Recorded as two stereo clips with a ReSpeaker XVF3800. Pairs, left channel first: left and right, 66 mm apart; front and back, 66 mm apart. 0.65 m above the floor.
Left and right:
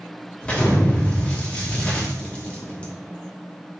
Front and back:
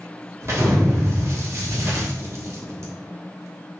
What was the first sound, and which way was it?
An explosion, 155° left.